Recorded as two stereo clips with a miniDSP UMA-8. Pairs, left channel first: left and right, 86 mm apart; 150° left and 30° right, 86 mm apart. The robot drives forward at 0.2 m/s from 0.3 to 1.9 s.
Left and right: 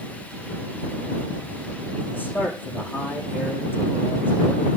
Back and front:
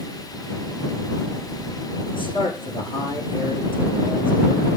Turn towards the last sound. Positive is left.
turn(degrees=155)